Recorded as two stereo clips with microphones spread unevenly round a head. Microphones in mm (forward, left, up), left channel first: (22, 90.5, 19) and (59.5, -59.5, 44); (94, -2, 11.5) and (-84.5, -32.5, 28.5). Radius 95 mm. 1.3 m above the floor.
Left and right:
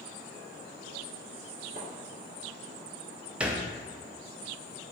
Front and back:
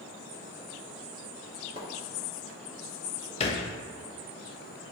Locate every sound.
1.8 s a splash: 125° right, 2 m
3.4 s a thud: 20° right, 0.6 m